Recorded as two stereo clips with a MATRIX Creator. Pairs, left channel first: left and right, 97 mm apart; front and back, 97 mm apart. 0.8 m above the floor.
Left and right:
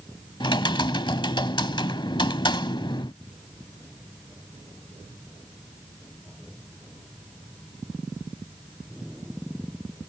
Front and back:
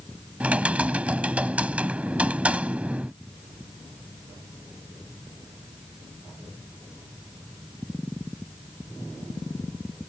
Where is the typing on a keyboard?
105° left.